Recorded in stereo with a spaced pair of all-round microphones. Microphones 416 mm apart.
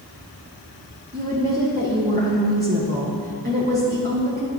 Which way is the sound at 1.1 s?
20° right (ahead or behind).